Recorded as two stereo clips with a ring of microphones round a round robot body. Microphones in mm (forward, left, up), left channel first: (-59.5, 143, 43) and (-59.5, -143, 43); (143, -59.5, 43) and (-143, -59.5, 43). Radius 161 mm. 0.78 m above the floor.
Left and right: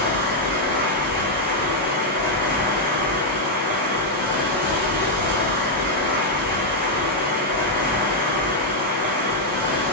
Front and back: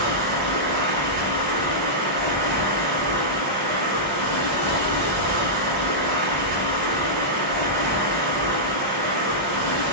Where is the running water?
135° right, 1.0 m.